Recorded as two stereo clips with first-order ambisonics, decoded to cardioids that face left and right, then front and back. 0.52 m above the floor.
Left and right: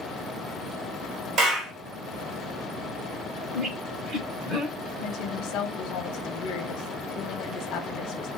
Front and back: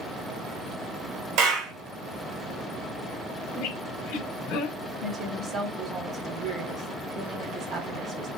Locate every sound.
1.4 s a clap: 150° right, 2.0 m
3.5 s a squeak: 15° right, 1.2 m
5.0 s a woman speaking: 120° left, 1.1 m